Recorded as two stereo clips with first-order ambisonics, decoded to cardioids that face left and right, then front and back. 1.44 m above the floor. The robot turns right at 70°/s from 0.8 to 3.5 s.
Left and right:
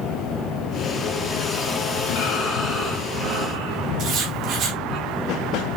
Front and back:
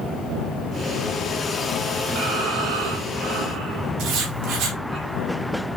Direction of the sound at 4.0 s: 140° right.